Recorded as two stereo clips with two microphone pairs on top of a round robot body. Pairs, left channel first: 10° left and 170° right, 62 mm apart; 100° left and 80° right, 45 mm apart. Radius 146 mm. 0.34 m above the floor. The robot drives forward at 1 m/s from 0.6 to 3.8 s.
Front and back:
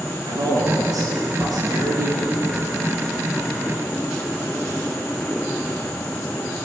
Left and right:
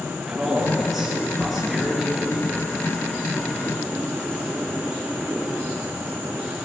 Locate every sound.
0.3 s a man speaking: 165° right, 8.5 m; by 2.7 s 170° right, 10.5 m